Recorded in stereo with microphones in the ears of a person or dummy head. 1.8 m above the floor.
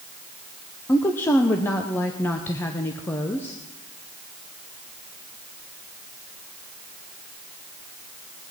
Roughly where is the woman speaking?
Centre.